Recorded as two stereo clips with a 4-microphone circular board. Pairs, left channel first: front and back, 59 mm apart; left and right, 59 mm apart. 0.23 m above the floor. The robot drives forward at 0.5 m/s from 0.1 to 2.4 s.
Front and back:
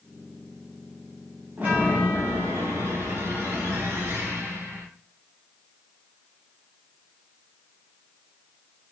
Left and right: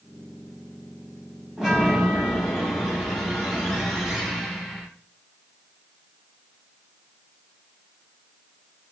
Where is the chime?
160° right, 1.0 m; by 4.9 s 170° right, 1.3 m.